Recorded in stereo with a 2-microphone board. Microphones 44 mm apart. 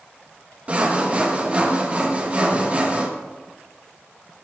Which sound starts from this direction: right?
Sawing, at 0.7 s.